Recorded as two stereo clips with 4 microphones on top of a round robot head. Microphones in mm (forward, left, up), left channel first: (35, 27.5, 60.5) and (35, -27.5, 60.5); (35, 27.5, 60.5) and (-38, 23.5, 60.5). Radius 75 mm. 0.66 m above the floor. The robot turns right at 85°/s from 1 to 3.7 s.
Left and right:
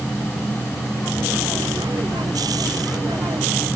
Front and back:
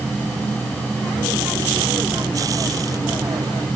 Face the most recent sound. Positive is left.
No sound to turn to.